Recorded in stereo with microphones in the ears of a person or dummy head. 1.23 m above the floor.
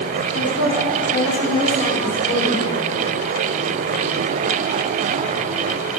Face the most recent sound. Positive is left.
turn(degrees=55)  # may be behind; listen again after turning